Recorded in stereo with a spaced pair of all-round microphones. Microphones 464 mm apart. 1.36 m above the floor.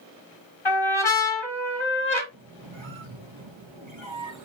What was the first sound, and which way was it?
A trumpet, 85° left.